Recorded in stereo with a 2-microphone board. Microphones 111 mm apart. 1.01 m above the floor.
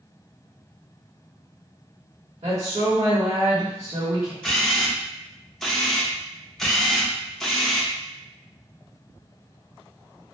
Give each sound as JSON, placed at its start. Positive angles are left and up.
{"t": 2.4, "sound": "a woman speaking", "side_deg": -75, "distance_m": 1.4}
{"t": 4.4, "sound": "a camera shutter", "side_deg": 0, "distance_m": 0.7}